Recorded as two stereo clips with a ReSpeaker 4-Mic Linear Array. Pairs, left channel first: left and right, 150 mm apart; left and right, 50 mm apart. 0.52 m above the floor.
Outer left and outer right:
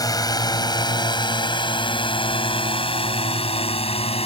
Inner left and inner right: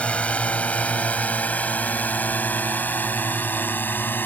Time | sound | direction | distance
0.0 | a drone | 25° left (ahead or behind) | ?